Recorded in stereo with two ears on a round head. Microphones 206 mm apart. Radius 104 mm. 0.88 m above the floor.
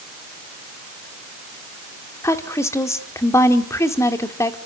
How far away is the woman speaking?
About 2 m.